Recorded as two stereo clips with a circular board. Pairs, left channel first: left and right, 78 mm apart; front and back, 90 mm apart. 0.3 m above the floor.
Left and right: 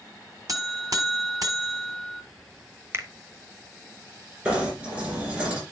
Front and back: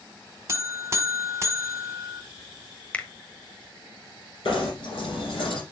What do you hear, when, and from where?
0.5 s a buzzer: 125° right, 1.4 m
2.9 s a finger snap: 65° right, 1.0 m
4.5 s knocking: 20° right, 6.5 m